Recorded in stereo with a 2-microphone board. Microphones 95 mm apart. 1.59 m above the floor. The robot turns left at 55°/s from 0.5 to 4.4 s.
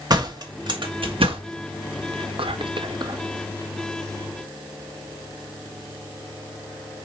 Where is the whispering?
75° right, 0.8 m; by 3.2 s 140° right, 0.8 m.